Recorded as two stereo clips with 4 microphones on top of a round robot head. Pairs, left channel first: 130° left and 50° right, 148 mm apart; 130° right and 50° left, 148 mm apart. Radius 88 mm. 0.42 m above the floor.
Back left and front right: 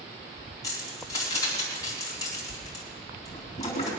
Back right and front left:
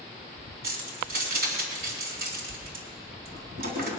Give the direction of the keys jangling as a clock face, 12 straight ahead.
10 o'clock.